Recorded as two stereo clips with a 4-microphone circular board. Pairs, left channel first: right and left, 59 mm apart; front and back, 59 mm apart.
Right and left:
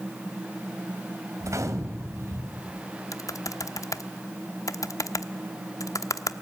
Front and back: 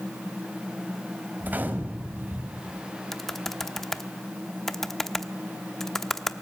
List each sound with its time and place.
1.4 s a gunshot: 120° left, 2 m
3.1 s typing on a keyboard: 85° right, 0.9 m